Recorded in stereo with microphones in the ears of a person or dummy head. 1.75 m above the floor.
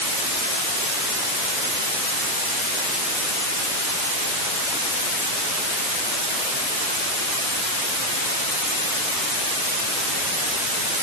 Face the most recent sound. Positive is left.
No sound to turn to.